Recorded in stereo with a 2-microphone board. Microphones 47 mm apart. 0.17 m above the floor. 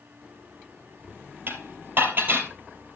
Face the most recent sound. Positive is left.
turn(degrees=-45)  # may be behind; listen again after turning